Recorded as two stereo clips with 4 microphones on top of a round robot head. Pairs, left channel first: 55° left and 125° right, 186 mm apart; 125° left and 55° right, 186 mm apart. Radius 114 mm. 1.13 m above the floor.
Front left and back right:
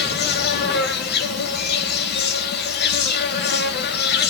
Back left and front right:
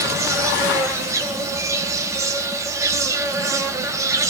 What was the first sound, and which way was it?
An insect, 20° left.